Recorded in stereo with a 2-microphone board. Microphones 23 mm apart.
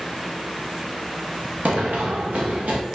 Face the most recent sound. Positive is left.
turn(degrees=-85)